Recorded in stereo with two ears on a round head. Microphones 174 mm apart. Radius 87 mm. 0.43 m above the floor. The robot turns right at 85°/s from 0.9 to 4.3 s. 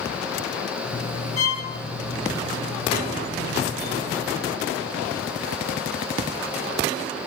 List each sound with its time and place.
1.4 s a violin: 35° left (ahead or behind), 0.8 m; by 1.6 s 30° left (ahead or behind), 0.8 m